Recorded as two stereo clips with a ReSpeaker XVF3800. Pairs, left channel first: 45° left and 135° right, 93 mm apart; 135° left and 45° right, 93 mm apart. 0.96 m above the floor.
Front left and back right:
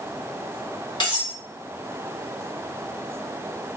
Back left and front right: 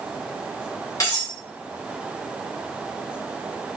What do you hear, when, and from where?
1.0 s cutlery clinking: 80° left, 1.4 m